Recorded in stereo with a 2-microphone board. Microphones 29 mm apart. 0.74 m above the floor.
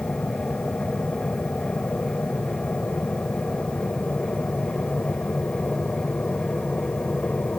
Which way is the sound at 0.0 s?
70° left (ahead or behind).